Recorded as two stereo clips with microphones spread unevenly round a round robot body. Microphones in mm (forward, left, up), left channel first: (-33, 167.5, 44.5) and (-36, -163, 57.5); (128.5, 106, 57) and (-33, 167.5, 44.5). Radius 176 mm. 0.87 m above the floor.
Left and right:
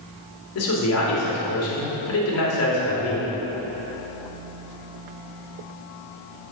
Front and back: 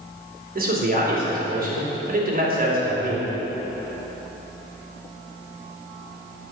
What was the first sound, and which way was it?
A man speaking, 130° left.